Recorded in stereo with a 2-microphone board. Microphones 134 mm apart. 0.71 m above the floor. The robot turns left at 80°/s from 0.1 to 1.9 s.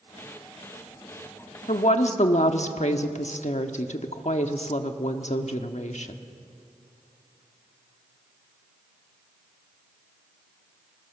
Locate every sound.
1.7 s a woman speaking: 65° left (ahead or behind), 1.3 m; by 6.2 s 60° left (ahead or behind), 1.3 m